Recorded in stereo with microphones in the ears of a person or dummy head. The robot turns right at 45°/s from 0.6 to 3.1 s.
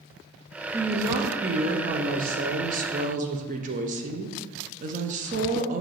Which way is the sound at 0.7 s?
170° right.